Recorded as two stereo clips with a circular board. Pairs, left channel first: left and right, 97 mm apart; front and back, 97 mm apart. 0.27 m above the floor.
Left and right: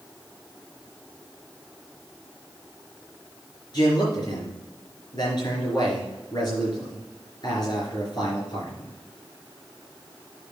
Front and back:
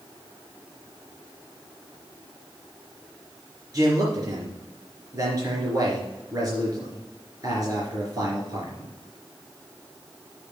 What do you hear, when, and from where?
3.7 s a man speaking: 130° left, 3.5 m